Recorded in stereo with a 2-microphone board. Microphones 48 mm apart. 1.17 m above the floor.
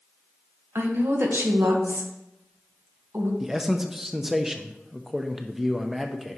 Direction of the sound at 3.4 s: 5° right (ahead or behind).